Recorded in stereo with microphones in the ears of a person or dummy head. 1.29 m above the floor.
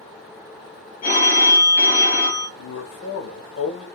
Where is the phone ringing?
35° left (ahead or behind), 0.6 m.